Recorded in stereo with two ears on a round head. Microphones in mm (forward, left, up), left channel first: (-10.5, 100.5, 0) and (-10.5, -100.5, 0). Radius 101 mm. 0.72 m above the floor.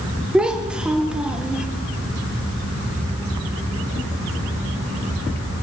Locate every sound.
0.3 s a child speaking: 5° right (ahead or behind), 1.0 m